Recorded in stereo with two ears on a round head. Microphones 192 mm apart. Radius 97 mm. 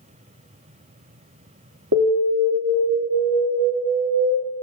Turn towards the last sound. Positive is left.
turn(degrees=-60)  # may be behind; listen again after turning